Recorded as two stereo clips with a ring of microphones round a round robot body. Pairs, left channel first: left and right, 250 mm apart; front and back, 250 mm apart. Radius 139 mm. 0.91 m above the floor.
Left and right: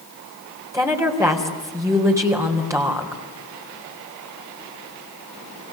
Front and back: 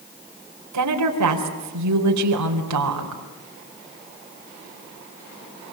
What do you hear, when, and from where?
0.7 s a woman speaking: 170° right, 4 m